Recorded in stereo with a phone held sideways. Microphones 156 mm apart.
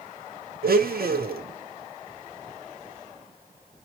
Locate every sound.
0.6 s a blender: 80° right, 0.9 m